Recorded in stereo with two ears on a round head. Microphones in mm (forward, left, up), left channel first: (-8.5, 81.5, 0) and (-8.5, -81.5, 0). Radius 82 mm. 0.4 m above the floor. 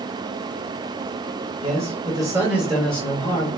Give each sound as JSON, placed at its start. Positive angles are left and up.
{"t": 1.6, "sound": "a man speaking", "side_deg": -35, "distance_m": 1.2}